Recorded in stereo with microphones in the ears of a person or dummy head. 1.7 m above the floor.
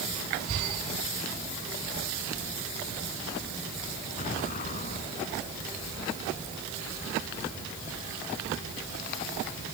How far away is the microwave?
I don't hear a microwave.